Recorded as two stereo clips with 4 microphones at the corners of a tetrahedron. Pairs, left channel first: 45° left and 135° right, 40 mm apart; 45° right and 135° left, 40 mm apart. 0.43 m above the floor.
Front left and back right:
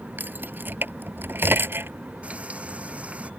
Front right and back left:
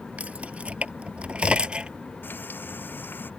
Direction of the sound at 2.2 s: 75° right.